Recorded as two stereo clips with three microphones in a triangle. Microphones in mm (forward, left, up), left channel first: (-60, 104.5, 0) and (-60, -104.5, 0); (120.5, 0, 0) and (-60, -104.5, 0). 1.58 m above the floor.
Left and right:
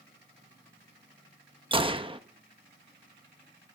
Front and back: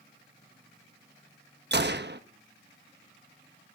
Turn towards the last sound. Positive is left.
turn(degrees=-150)